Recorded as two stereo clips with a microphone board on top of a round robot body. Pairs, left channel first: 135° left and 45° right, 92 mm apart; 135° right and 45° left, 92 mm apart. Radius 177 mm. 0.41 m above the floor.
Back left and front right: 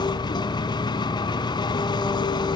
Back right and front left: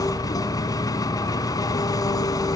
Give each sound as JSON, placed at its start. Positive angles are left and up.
{"t": 0.0, "sound": "an engine running", "azimuth_deg": 175, "distance_m": 1.8}